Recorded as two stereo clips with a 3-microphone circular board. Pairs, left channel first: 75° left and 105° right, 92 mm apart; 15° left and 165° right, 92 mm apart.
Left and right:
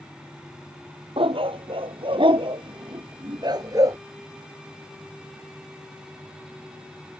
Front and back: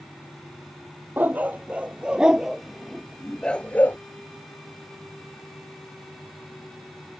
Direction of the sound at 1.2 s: 95° right.